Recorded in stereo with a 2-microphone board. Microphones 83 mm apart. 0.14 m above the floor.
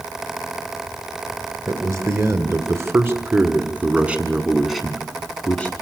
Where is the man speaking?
40° right (ahead or behind), 2.5 m; by 5.7 s 20° left (ahead or behind), 1.5 m.